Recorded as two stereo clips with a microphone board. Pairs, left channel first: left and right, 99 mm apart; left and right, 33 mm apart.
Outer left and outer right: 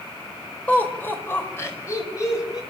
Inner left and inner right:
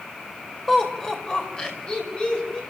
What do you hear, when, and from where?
0.7 s laughter: 15° left (ahead or behind), 4 m; by 2.6 s 35° left (ahead or behind), 5.5 m